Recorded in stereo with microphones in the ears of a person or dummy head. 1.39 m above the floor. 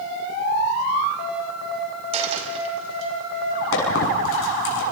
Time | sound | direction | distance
2.1 | a dropped coin | 35° right (ahead or behind) | 4 m
3.7 | a squeak | 75° left (ahead or behind) | 6.5 m